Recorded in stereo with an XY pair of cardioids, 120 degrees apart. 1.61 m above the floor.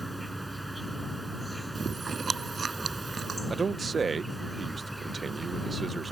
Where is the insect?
5° right.